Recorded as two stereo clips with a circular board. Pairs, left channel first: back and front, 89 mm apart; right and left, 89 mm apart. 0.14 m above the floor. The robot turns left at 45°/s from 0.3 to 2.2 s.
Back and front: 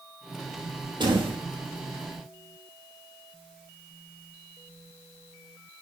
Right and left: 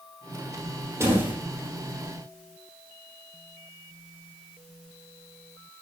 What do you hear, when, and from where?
1.0 s a door slam: 30° left, 4 m; by 1.4 s 15° left, 4 m